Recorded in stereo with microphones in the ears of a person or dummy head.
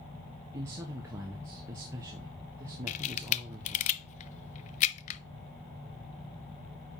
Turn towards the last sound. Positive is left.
turn(degrees=40)  # may be behind; listen again after turning